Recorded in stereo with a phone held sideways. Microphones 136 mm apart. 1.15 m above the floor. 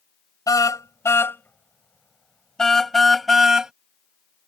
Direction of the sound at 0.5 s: 25° left (ahead or behind).